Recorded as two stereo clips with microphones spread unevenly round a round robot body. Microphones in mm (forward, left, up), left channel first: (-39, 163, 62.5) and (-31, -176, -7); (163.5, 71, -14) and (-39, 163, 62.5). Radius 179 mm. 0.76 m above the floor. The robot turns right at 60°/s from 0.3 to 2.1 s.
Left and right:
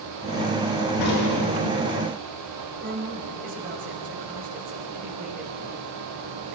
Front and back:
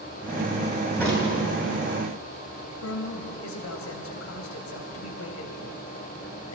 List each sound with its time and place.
1.0 s a crack: 55° left, 9 m; by 1.3 s 80° left, 9 m
2.8 s a woman speaking: 25° right, 3.5 m